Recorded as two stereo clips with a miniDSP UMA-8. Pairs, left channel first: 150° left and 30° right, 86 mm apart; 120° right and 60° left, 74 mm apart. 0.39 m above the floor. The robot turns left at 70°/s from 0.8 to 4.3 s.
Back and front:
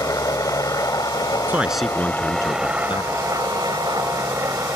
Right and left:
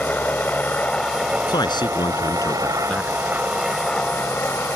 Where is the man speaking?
95° right; by 3.3 s 135° left.